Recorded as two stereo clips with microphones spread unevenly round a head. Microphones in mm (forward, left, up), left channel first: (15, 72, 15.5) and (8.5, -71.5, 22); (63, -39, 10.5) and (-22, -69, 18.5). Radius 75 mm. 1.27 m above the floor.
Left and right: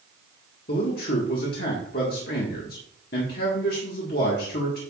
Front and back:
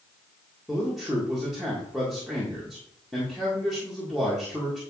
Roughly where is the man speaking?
Left.